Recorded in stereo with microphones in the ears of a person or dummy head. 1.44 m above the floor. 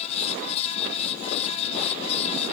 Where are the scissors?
No scissors in this recording.